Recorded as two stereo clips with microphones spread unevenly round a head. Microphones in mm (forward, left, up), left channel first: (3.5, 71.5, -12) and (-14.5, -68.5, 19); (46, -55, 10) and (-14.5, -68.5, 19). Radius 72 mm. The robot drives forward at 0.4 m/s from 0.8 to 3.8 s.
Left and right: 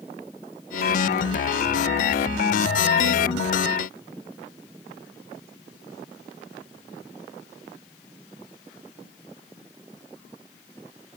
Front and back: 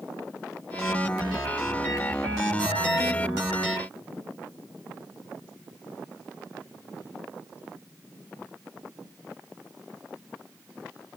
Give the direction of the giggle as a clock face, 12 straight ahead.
I don't hear a giggle.